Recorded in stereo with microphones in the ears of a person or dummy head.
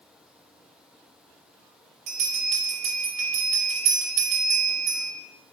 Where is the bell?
40° right (ahead or behind), 1.1 m.